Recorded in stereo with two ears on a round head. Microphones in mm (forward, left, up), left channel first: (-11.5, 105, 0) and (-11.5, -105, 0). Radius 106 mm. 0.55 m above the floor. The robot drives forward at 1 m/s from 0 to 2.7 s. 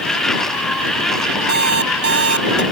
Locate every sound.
1.5 s an alarm clock: 50° right (ahead or behind); by 2.6 s 55° right (ahead or behind)